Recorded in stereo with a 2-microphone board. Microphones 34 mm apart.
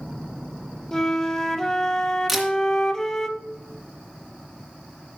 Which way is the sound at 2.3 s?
5° right (ahead or behind).